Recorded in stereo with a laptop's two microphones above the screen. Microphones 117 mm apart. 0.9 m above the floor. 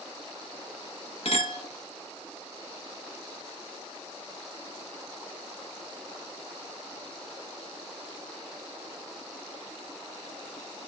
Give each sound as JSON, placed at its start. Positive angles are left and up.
{"t": 1.2, "sound": "a clink", "side_deg": 65, "distance_m": 0.7}